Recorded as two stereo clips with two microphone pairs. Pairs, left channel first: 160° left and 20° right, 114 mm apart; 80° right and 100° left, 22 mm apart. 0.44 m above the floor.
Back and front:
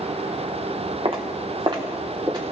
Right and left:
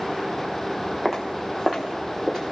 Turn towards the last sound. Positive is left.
turn(degrees=35)